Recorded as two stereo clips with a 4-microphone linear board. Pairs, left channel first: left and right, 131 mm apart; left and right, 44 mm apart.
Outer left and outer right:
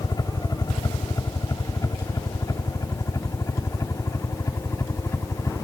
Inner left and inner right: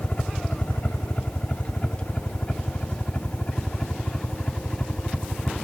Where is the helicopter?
30° left (ahead or behind); by 5.6 s 20° left (ahead or behind).